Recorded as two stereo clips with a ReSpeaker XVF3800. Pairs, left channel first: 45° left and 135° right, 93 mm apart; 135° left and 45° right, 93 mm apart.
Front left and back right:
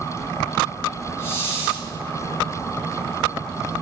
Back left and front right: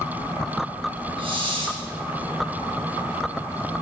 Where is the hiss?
20° right, 1.8 m.